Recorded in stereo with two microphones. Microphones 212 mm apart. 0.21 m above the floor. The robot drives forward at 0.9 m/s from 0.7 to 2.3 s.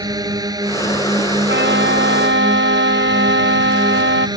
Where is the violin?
60° right (ahead or behind); by 4.3 s 65° right (ahead or behind).